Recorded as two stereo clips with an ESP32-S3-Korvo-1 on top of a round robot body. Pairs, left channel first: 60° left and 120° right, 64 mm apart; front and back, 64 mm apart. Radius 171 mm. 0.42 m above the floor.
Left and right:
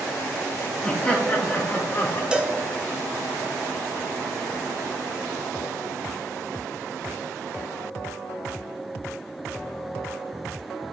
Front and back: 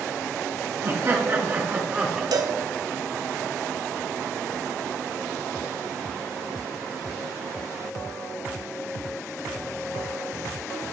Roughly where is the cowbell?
Behind.